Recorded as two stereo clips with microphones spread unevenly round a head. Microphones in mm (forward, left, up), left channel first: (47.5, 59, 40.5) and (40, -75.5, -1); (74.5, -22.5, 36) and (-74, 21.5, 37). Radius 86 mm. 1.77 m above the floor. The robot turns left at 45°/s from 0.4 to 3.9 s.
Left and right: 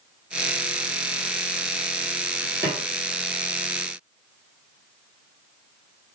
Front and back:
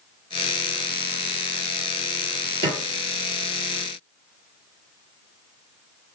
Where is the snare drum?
165° left, 1.3 m; by 2.8 s 155° left, 1.3 m.